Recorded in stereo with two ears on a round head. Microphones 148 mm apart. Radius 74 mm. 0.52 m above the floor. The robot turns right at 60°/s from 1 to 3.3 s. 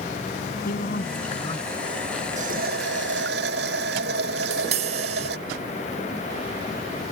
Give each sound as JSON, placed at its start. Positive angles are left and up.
{"t": 0.7, "sound": "a man speaking", "azimuth_deg": 120}
{"t": 2.4, "sound": "a running tap", "azimuth_deg": -130}
{"t": 4.4, "sound": "tapping", "side_deg": -45}